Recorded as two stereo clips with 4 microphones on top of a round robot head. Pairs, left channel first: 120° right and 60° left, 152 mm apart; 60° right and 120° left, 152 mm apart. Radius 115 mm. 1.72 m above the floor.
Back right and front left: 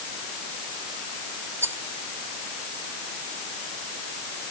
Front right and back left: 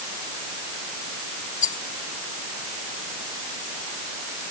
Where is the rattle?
15° right.